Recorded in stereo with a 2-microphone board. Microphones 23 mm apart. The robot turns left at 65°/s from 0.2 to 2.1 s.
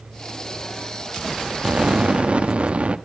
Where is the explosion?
50° right (ahead or behind), 1.0 m; by 3.0 s 60° right (ahead or behind), 1.0 m.